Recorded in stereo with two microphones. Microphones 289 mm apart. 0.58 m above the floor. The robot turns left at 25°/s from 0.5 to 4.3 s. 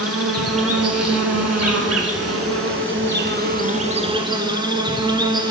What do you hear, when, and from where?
0.0 s an insect: 65° right, 0.8 m; by 5.5 s 160° right, 0.8 m